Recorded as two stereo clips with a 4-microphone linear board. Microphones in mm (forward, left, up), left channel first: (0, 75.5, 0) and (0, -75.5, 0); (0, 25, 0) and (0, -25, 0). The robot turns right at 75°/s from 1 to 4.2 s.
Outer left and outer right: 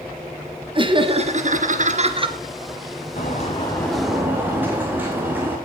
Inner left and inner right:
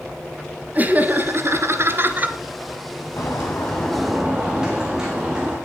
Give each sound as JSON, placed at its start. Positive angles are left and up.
{"t": 0.8, "sound": "laughter", "azimuth_deg": -140, "distance_m": 2.5}
{"t": 3.2, "sound": "a bird", "azimuth_deg": 115, "distance_m": 4.5}